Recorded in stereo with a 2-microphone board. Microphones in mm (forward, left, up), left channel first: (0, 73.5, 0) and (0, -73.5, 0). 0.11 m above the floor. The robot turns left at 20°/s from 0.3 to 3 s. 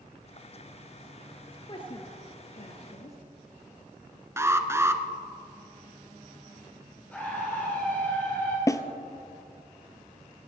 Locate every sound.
1.5 s a woman speaking: 30° left (ahead or behind), 1.5 m; by 3.2 s 45° left (ahead or behind), 1.5 m
4.4 s an alarm: 15° right (ahead or behind), 0.9 m
7.1 s a scream: 10° left (ahead or behind), 2.5 m
8.7 s a snare drum: 20° left (ahead or behind), 0.8 m